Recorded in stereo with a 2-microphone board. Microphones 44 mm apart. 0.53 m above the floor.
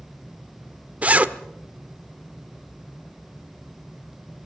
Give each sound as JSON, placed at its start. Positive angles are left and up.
{"t": 1.0, "sound": "a zipper", "side_deg": -30, "distance_m": 1.0}